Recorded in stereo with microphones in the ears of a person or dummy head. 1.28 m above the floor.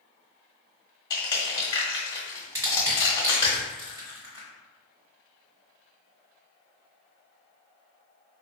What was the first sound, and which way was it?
Crushing, 25° left (ahead or behind).